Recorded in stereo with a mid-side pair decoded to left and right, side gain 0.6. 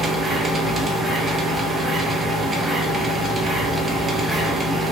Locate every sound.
0.0 s a machine running: 25° right, 0.8 m